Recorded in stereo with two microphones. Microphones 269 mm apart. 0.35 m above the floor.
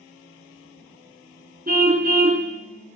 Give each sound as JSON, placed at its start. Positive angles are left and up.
{"t": 1.7, "sound": "a car horn", "side_deg": -35, "distance_m": 2.5}